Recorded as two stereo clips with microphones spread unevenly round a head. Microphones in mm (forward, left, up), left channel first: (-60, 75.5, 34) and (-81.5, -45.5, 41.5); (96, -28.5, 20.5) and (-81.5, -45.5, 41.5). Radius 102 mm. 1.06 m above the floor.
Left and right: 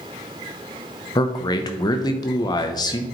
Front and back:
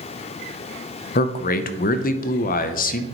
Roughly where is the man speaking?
Ahead left.